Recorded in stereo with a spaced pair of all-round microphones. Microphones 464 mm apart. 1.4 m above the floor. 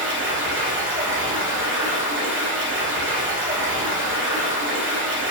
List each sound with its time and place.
0.0 s running water: 25° right (ahead or behind), 0.9 m